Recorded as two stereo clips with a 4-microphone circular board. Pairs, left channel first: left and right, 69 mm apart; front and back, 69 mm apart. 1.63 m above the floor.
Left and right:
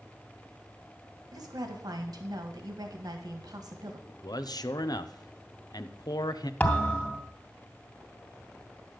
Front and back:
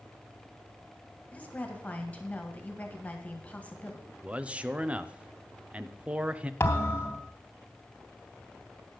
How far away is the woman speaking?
About 1.7 m.